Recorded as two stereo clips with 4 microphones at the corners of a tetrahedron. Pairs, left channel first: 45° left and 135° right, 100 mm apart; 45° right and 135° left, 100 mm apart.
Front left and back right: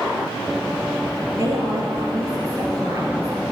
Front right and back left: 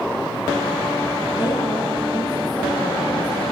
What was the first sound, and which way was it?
A woman speaking, 85° right.